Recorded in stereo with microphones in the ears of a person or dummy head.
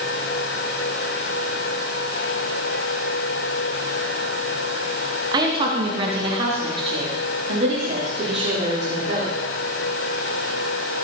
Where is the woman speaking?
30° right (ahead or behind), 2 m; by 9.3 s 40° right (ahead or behind), 5 m.